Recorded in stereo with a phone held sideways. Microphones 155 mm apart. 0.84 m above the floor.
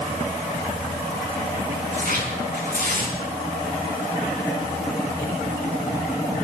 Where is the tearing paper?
75° right (ahead or behind), 6 m.